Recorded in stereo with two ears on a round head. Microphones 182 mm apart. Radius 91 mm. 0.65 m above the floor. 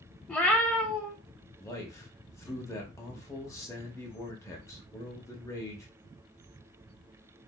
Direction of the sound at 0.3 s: 5° left (ahead or behind).